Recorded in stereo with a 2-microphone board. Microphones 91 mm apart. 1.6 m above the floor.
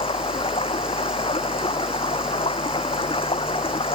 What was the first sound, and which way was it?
Running water, 80° left.